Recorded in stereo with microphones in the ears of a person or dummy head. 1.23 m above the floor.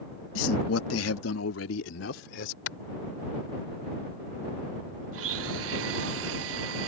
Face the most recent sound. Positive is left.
turn(degrees=-75)  # may be behind; listen again after turning